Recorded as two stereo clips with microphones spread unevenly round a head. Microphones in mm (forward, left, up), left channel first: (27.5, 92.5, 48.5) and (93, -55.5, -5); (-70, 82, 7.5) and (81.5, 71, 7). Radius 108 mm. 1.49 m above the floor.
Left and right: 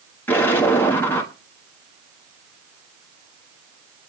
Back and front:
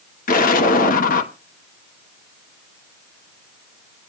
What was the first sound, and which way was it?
An explosion, straight behind.